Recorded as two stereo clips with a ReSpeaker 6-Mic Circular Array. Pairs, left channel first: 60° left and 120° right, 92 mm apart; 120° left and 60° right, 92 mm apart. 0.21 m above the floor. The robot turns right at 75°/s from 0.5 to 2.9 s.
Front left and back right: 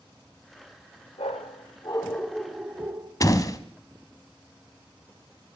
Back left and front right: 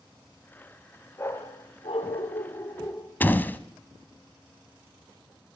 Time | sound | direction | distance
1.2 | a dog barking | 55° left | 1.7 m
3.2 | a door slam | 65° left | 1.0 m